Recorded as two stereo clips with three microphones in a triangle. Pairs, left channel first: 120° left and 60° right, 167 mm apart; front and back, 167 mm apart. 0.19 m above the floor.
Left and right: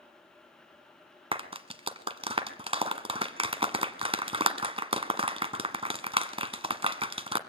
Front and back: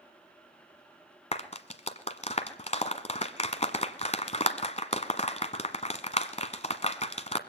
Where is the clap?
20° right, 1.4 m.